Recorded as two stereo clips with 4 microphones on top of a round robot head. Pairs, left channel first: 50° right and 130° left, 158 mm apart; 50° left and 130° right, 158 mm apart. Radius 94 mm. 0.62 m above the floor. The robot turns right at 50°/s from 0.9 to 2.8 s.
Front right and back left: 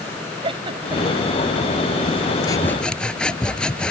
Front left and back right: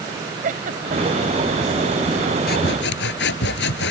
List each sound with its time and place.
0.4 s a giggle: 170° right; by 1.3 s 150° right
2.5 s sawing: 20° left; by 3.9 s 35° left